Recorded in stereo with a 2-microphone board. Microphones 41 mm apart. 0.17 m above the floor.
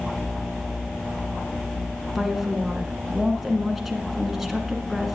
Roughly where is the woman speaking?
Centre.